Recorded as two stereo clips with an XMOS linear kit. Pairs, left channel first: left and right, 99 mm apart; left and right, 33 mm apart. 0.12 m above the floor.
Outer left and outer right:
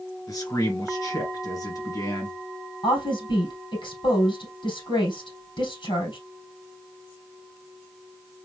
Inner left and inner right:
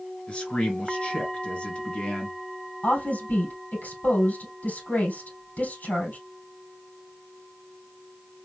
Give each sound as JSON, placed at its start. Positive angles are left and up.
{"t": 0.3, "sound": "a man speaking", "side_deg": 35, "distance_m": 2.0}
{"t": 2.8, "sound": "a woman speaking", "side_deg": 55, "distance_m": 3.5}